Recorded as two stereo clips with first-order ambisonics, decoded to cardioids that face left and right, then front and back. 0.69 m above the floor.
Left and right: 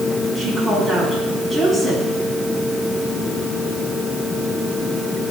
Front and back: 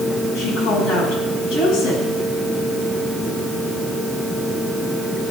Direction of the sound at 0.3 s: 10° left.